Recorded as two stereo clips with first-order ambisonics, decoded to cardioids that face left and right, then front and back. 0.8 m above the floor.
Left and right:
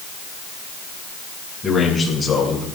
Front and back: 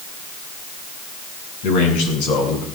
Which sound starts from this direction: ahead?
A man speaking, at 1.6 s.